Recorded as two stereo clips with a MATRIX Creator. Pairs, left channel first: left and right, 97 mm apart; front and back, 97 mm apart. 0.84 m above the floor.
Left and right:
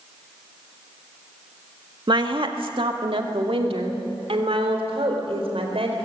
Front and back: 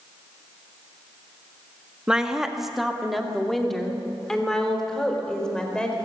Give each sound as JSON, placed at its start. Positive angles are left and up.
{"t": 2.1, "sound": "a woman speaking", "azimuth_deg": -100, "distance_m": 1.6}